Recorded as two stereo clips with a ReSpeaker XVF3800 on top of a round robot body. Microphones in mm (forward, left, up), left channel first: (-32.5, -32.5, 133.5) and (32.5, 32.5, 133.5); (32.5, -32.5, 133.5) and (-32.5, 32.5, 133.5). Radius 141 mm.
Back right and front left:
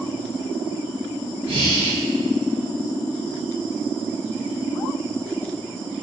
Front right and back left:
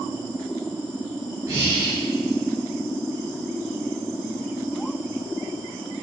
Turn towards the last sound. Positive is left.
turn(degrees=70)